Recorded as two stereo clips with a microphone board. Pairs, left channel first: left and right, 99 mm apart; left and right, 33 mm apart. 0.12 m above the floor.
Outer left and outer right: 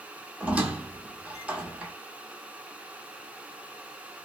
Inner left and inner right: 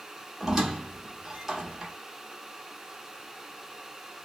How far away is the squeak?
About 1.1 m.